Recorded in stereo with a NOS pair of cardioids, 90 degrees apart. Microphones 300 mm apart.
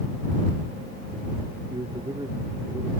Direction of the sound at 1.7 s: 15° right.